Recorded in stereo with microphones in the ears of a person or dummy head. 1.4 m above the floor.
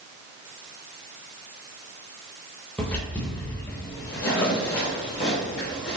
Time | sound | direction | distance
2.8 | footsteps | 10° left (ahead or behind) | 1.8 m